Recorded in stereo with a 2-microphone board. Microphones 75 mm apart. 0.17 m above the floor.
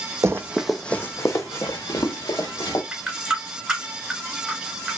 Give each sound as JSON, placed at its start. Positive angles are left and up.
{"t": 0.2, "sound": "running footsteps", "side_deg": -45, "distance_m": 0.5}
{"t": 2.9, "sound": "a running tap", "side_deg": -10, "distance_m": 1.5}